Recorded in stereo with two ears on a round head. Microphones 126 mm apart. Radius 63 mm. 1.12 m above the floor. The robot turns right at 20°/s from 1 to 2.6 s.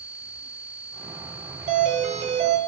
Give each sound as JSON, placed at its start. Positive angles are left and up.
{"t": 1.7, "sound": "a doorbell", "side_deg": -55, "distance_m": 1.2}